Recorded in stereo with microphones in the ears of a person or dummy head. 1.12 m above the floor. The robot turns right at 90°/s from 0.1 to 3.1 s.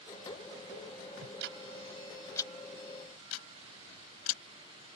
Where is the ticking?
85° right; by 4.9 s 85° left.